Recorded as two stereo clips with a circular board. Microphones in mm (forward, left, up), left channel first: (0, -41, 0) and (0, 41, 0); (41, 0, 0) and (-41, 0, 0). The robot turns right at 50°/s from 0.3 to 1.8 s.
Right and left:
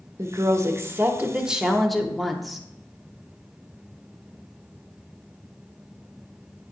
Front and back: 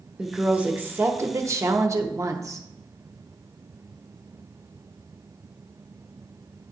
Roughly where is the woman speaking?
Left.